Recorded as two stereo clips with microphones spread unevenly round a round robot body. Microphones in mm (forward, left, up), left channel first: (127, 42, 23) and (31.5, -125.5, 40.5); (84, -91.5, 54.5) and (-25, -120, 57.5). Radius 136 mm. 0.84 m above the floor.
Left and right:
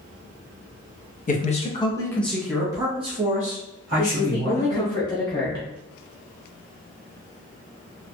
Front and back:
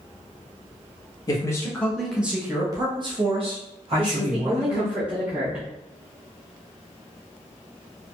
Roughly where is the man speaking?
Ahead left.